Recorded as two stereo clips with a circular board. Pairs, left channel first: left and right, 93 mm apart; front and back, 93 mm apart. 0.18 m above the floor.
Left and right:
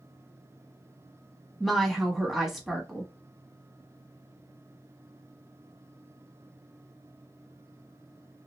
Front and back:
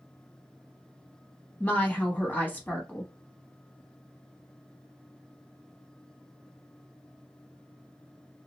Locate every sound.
1.6 s a woman speaking: 5° right, 1.0 m